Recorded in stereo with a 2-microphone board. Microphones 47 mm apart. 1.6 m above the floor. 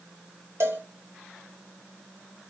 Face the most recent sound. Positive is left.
turn(degrees=-75)  # may be behind; listen again after turning